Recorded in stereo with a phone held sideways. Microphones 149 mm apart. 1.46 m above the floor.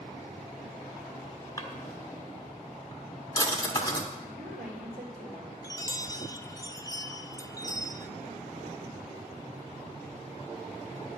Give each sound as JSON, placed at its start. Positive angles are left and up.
{"t": 1.6, "sound": "a drawer", "side_deg": 25, "distance_m": 1.3}
{"t": 4.2, "sound": "a woman speaking", "side_deg": -85, "distance_m": 3.0}
{"t": 5.6, "sound": "a chime", "side_deg": 25, "distance_m": 0.6}